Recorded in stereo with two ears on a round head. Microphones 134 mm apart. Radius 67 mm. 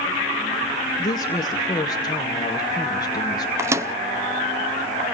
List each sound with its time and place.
1.0 s a woman speaking: 25° left (ahead or behind), 1.6 m
3.6 s a microwave: 20° right (ahead or behind), 0.6 m